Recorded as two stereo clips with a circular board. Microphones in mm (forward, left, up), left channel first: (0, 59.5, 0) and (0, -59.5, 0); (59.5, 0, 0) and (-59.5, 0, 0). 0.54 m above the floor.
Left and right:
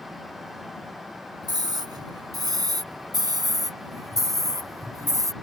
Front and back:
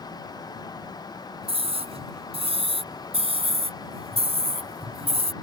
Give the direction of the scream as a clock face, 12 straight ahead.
5 o'clock.